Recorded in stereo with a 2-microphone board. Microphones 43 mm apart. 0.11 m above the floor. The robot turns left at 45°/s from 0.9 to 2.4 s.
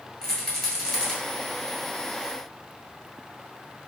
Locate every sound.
0.2 s a rattle: 5° left (ahead or behind), 1.2 m; by 1.1 s 15° left (ahead or behind), 1.2 m